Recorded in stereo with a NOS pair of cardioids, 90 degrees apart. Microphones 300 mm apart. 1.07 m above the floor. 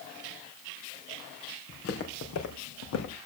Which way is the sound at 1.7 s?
45° left.